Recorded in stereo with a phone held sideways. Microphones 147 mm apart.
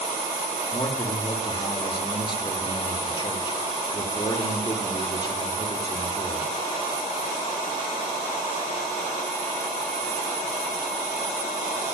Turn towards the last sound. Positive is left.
turn(degrees=30)  # may be behind; listen again after turning